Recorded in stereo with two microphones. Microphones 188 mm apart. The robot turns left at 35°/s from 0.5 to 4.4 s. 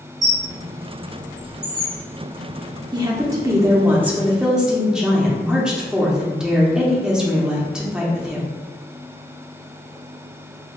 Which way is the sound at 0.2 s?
20° left (ahead or behind).